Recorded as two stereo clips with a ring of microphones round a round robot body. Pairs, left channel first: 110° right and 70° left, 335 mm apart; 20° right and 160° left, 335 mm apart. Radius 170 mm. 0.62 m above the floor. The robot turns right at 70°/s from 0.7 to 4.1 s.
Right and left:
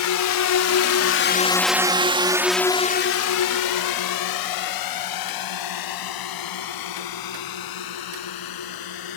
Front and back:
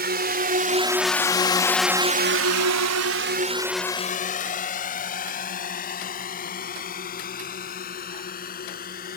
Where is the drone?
145° right; by 9.2 s 90° right.